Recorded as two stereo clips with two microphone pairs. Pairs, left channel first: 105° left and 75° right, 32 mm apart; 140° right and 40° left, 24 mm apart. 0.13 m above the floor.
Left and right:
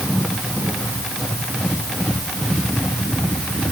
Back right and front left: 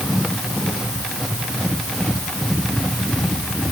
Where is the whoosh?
No whoosh in this recording.